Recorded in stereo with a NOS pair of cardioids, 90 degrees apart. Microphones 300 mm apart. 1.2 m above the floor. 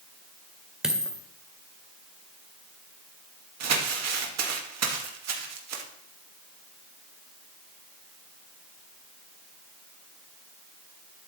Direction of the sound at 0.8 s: Straight ahead.